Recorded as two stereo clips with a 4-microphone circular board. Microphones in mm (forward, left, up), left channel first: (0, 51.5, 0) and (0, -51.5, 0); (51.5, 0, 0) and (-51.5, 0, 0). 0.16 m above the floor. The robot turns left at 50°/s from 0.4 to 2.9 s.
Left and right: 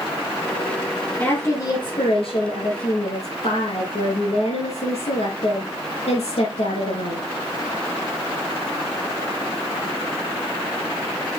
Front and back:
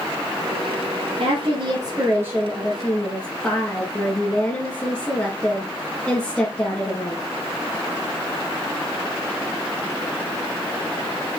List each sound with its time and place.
1.2 s a woman speaking: 155° left, 3.5 m; by 7.2 s 70° left, 3.5 m